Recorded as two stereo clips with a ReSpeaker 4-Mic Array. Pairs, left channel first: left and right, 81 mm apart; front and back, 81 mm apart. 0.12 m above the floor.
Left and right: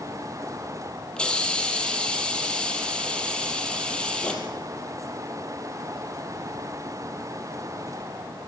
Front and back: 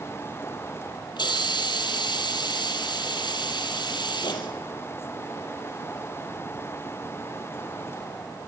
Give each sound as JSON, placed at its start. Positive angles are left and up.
{"t": 1.2, "sound": "a hiss", "azimuth_deg": 15, "distance_m": 3.5}